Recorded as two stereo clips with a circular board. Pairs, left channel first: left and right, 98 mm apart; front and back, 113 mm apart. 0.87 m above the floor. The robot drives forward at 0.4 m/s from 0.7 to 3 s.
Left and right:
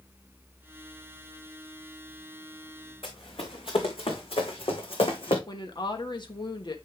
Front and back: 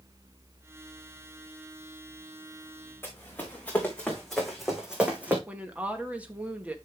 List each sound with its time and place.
3.0 s running footsteps: 70° left, 3.5 m; by 5.4 s 105° left, 3 m
5.5 s a woman speaking: 105° left, 1.3 m